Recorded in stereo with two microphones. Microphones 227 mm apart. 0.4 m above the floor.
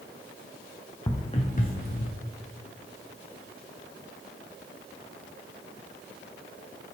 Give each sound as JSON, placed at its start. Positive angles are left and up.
{"t": 1.1, "sound": "footsteps", "side_deg": 15, "distance_m": 1.6}